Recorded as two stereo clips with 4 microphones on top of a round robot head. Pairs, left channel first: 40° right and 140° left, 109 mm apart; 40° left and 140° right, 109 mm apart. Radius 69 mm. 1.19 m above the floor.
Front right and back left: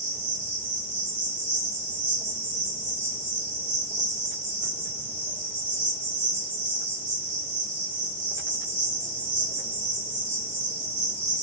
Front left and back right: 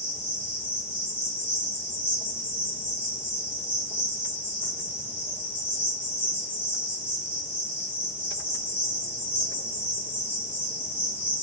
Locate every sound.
0.0 s an insect: 145° left, 2.5 m